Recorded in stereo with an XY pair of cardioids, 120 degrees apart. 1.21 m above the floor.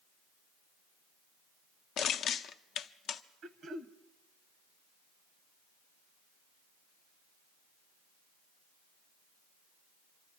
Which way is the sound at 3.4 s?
55° right.